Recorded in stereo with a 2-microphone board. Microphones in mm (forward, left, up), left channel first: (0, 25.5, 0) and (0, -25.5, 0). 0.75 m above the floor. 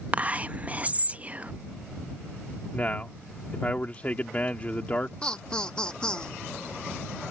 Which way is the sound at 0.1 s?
30° right (ahead or behind).